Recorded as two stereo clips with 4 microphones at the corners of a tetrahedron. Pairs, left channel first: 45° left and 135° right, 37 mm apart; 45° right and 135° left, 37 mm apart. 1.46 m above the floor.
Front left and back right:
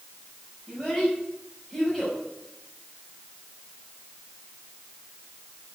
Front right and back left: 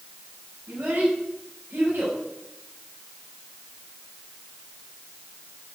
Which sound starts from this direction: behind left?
A child speaking, at 0.7 s.